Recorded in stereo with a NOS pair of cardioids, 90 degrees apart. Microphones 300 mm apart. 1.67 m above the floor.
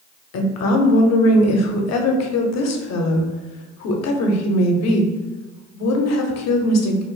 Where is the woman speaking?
65° left, 0.7 m.